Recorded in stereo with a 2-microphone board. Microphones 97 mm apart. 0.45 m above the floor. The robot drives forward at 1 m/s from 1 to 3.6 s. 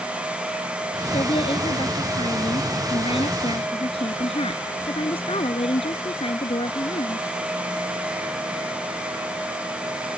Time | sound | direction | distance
1.1 | a woman speaking | 60° left (ahead or behind) | ?